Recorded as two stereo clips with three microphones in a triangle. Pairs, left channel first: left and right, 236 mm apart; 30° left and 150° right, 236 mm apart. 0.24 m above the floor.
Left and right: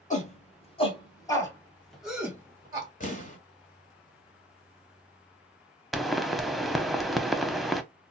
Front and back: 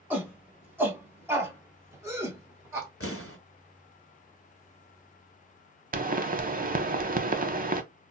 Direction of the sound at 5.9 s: Straight behind.